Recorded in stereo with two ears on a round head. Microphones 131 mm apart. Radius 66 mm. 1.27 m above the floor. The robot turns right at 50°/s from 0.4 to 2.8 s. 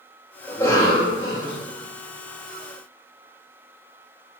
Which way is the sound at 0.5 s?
10° left.